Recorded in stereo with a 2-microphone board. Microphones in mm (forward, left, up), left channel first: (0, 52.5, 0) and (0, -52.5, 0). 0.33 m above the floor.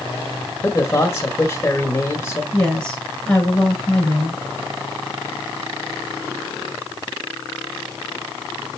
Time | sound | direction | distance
0.6 | a man speaking | 25° left (ahead or behind) | 1.4 m
2.5 | a woman speaking | 15° left (ahead or behind) | 4 m